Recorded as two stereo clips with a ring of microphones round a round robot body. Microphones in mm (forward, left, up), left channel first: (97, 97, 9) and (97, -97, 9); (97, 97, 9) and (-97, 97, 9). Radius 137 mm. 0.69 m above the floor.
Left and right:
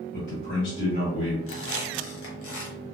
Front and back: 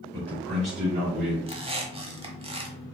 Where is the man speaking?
125° left, 1.3 m; by 1.4 s 145° left, 2 m.